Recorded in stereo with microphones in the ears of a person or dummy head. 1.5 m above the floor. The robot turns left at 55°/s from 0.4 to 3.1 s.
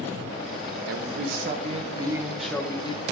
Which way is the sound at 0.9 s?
100° right.